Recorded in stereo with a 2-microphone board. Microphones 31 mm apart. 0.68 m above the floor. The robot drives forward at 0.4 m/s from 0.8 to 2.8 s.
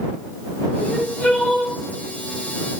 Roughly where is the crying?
Left.